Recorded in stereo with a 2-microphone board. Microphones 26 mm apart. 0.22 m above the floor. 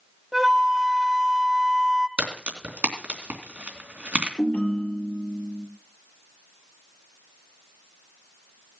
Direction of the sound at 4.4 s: 55° left (ahead or behind).